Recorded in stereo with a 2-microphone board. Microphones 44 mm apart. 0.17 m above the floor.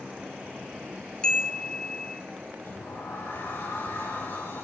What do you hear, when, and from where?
1.2 s a chime: 20° left (ahead or behind), 1.8 m
2.6 s a sliding door: 70° left (ahead or behind), 8 m